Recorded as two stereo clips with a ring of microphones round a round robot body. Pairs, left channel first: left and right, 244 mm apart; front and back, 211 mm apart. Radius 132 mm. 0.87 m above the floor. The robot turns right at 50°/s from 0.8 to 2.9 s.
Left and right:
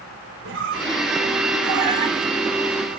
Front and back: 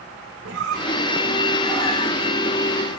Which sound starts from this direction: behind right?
A squeak, at 0.5 s.